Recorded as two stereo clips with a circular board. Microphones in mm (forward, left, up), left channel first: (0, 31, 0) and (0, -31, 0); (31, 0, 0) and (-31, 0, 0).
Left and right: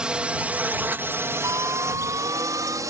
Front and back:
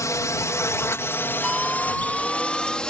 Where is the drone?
15° right; by 2.9 s 75° right.